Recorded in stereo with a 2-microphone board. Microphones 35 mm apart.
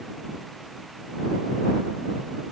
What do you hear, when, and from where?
Only background noise.